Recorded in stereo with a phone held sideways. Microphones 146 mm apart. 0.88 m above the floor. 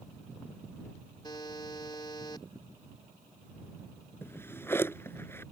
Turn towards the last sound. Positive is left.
turn(degrees=15)  # may be behind; listen again after turning